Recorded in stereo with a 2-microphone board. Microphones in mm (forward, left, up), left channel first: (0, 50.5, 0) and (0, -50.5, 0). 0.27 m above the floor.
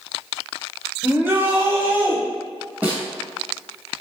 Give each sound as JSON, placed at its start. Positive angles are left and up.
{"t": 1.0, "sound": "a shout", "side_deg": -20, "distance_m": 1.2}
{"t": 2.8, "sound": "a snare drum", "side_deg": -15, "distance_m": 1.1}